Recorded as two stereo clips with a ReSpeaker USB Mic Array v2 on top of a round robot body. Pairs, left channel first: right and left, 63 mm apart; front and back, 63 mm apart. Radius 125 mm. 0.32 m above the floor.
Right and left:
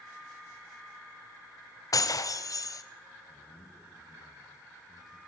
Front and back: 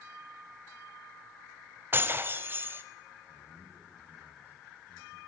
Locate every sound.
1.9 s breaking glass: 120° right, 1.3 m
3.3 s a man speaking: 115° right, 4.5 m